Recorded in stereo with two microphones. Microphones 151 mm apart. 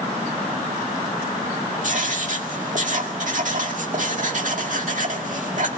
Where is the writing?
60° right (ahead or behind), 2 m.